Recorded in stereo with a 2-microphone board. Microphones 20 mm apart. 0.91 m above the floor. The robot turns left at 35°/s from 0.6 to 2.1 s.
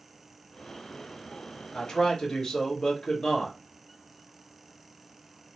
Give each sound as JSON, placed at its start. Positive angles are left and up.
{"t": 1.7, "sound": "a man speaking", "side_deg": 50, "distance_m": 1.3}